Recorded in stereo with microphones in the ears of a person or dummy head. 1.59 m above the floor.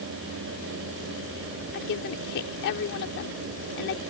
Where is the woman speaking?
65° left (ahead or behind).